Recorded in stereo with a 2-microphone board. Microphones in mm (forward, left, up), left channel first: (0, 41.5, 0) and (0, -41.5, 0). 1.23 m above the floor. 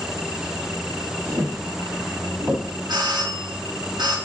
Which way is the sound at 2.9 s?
60° right (ahead or behind).